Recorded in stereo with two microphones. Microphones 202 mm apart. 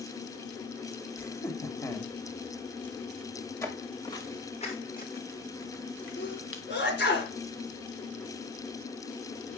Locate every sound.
1.2 s laughter: 15° left (ahead or behind), 1.2 m
3.6 s footsteps: 15° left (ahead or behind), 3 m; by 6.6 s 80° left, 2 m
6.2 s a sneeze: 55° left (ahead or behind), 3.5 m